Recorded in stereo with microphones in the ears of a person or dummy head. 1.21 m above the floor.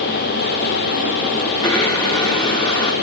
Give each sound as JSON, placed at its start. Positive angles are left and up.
{"t": 1.6, "sound": "a blender", "side_deg": 30, "distance_m": 4.0}